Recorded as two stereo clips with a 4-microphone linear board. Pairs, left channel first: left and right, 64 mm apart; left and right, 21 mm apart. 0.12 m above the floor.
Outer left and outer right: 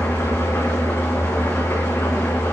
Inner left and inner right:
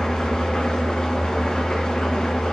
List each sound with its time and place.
0.0 s an engine running: 40° left (ahead or behind), 2 m